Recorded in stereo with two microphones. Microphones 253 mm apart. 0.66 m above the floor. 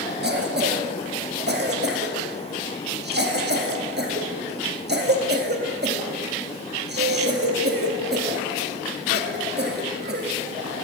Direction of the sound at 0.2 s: 40° right (ahead or behind).